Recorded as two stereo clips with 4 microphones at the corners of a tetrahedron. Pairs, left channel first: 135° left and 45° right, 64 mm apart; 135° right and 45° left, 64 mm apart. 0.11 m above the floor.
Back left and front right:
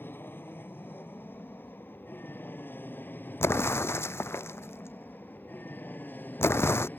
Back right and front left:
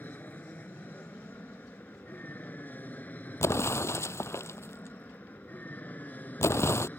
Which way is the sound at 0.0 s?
175° left.